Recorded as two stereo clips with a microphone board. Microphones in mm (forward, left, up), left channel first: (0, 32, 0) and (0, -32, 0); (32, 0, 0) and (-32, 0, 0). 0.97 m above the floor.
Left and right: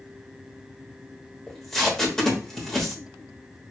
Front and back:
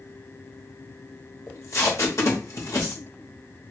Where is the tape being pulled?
10° left, 1.2 m.